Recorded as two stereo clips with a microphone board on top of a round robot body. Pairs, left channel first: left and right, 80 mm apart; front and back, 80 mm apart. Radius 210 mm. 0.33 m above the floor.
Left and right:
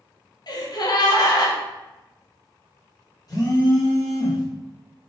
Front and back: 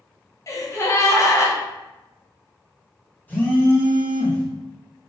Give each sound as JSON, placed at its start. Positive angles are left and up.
{"t": 0.5, "sound": "a gasp", "azimuth_deg": 55, "distance_m": 0.8}
{"t": 3.3, "sound": "a phone buzzing", "azimuth_deg": 65, "distance_m": 1.8}